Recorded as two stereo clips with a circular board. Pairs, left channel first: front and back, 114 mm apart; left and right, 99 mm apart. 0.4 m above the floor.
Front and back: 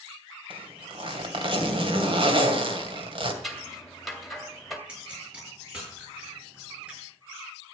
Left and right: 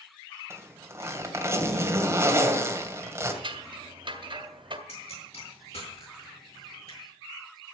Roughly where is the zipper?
Behind right.